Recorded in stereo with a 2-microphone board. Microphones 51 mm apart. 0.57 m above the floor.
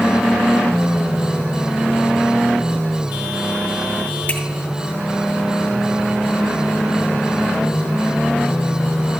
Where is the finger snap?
45° left (ahead or behind), 3 m.